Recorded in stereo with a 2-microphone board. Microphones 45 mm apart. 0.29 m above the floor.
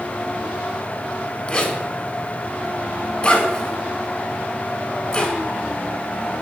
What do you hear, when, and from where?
1.5 s a zipper: 25° left (ahead or behind), 0.6 m